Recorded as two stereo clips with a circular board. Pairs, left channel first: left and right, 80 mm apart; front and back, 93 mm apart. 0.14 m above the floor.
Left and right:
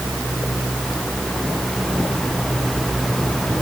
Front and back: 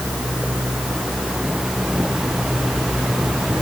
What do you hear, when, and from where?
Only background noise.